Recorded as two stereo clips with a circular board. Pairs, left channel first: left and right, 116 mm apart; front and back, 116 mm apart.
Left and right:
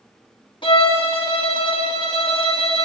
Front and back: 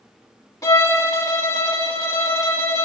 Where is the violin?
60° left, 0.8 m.